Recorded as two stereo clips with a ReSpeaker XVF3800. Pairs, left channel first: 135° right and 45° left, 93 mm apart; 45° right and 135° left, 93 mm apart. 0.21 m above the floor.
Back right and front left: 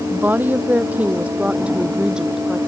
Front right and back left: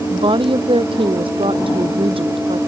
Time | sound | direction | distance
0.1 | a woman speaking | 115° left | ?